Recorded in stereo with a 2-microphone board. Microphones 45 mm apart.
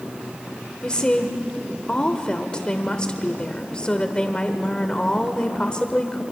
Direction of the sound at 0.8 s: 20° left (ahead or behind).